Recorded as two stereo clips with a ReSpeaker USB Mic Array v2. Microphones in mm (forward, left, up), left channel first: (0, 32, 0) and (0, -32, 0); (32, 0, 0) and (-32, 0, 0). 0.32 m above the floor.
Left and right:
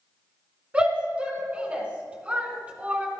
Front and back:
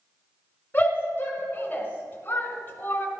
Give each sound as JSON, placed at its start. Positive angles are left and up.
{"t": 0.7, "sound": "a shout", "azimuth_deg": -35, "distance_m": 1.8}